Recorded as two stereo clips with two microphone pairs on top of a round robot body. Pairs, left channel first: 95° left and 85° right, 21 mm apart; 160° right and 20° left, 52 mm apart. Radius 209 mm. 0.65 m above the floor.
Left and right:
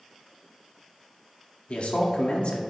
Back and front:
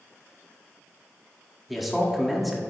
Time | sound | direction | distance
1.7 | a man speaking | 110° left | 2 m